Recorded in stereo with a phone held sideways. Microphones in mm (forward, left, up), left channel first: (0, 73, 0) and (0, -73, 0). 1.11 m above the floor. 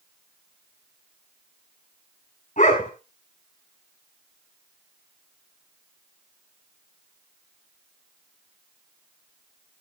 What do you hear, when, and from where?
2.6 s a dog barking: 55° left (ahead or behind), 4.5 m